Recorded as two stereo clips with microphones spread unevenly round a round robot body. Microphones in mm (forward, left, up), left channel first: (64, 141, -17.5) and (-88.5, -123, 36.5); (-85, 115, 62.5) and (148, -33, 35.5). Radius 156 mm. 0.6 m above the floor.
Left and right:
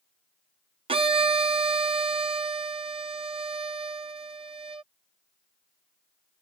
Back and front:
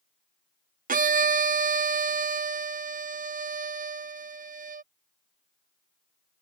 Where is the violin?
45° right.